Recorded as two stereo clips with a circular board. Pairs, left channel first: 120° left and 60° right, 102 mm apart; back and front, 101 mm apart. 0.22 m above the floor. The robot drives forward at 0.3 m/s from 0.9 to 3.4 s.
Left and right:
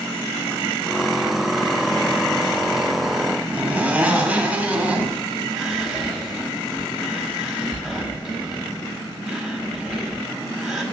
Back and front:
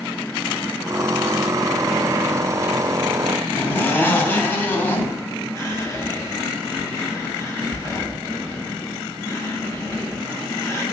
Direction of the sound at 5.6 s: 145° right.